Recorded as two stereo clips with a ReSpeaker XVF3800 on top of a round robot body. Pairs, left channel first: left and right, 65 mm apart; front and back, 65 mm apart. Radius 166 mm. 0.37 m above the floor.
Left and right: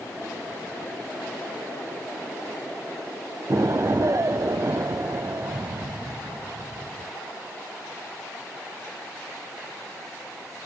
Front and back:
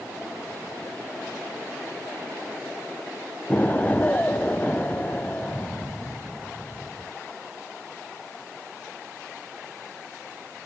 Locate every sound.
3.5 s an explosion: 60° right, 0.6 m